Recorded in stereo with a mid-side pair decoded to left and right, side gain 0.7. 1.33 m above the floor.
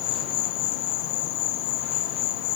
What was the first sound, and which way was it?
An insect, 70° left.